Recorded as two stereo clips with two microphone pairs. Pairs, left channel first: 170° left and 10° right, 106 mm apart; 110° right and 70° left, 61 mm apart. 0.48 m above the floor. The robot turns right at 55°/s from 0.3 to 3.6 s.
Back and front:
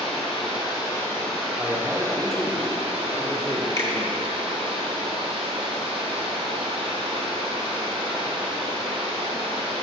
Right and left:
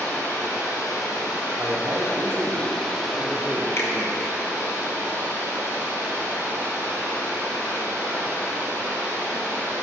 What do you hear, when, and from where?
0.0 s running water: 165° right, 2 m; by 9.8 s 15° left, 2 m
1.6 s a man speaking: 45° left, 0.8 m; by 4.3 s 155° left, 0.8 m
3.8 s a finger snap: 140° right, 1.0 m